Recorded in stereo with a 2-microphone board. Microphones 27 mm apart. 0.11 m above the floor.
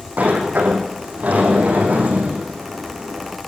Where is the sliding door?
75° right (ahead or behind), 5 m.